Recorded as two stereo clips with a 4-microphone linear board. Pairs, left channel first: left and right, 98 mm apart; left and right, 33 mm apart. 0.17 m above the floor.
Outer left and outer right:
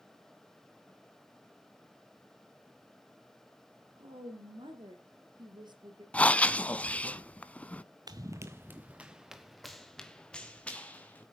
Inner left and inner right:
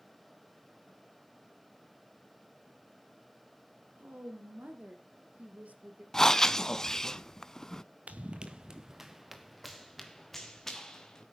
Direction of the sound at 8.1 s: 40° right (ahead or behind).